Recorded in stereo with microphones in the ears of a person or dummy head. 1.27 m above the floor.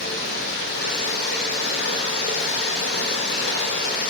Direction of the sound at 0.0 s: 60° left (ahead or behind).